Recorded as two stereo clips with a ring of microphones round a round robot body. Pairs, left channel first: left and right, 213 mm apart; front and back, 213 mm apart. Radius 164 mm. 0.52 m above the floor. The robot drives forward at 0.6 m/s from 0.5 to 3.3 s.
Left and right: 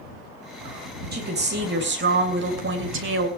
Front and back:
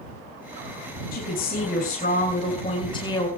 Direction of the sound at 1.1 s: 50° right.